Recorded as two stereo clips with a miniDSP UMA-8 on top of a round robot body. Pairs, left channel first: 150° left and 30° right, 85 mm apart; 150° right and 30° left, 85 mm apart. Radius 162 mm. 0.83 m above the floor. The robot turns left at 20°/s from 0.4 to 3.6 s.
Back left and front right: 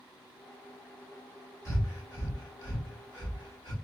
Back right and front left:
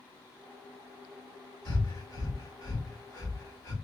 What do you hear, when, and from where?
1.6 s breathing: 160° right, 2.5 m; by 3.7 s 160° left, 2.5 m